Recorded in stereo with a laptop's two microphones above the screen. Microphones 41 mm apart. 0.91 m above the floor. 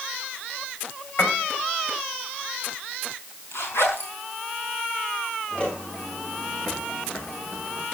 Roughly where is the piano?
Left.